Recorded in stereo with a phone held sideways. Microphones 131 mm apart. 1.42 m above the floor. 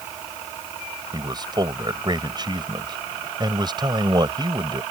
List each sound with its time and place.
1.1 s a man speaking: 35° right (ahead or behind)